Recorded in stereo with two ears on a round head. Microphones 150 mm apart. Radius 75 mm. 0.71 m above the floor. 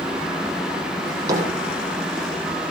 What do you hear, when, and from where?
1.1 s a drawer: 20° right (ahead or behind), 6.5 m